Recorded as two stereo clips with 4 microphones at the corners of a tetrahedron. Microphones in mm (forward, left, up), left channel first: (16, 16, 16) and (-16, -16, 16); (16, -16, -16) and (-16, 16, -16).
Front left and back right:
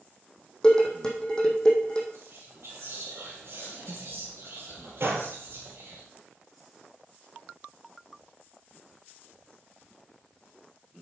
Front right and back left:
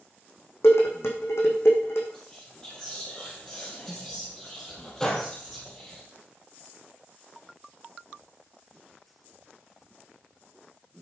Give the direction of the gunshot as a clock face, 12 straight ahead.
4 o'clock.